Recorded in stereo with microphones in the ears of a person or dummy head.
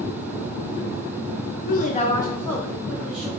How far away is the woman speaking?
About 0.7 m.